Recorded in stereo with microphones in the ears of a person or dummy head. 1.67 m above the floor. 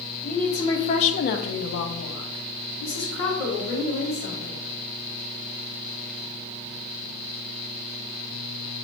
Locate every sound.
0.2 s a woman speaking: 5° left (ahead or behind), 0.8 m; by 4.6 s 45° left (ahead or behind), 2 m